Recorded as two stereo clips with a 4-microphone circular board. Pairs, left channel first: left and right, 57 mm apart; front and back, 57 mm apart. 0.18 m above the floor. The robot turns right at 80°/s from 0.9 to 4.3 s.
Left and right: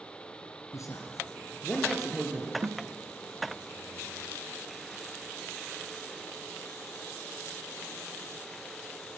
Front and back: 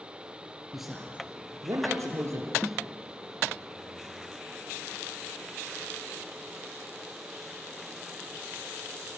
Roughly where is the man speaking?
Left.